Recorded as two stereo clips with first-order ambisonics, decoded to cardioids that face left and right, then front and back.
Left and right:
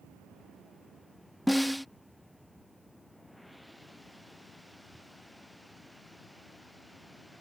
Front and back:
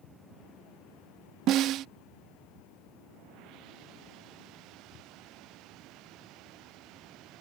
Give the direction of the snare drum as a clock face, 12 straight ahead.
6 o'clock.